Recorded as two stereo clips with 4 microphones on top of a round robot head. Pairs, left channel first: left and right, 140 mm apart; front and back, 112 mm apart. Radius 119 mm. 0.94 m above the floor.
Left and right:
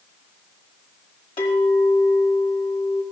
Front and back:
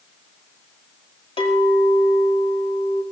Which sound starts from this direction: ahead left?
A clink, at 1.4 s.